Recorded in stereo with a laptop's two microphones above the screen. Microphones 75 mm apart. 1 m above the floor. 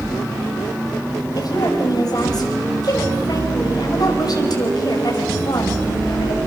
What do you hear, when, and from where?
1.4 s a woman speaking: 60° left (ahead or behind), 6 m